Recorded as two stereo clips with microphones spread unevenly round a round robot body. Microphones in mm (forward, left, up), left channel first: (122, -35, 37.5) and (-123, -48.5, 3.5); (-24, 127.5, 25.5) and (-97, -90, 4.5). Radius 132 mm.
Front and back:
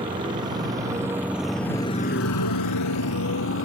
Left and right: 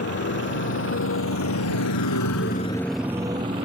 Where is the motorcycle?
110° left; by 3.6 s 35° right.